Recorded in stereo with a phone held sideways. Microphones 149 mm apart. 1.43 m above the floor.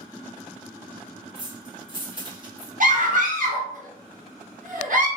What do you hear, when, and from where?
1.4 s keys jangling: 30° right (ahead or behind), 1.2 m
2.8 s a scream: 60° right (ahead or behind), 1.0 m